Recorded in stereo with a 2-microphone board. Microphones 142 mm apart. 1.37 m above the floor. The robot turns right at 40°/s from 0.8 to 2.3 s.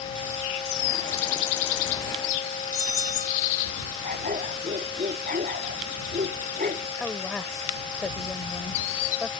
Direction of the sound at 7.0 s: 5° left (ahead or behind).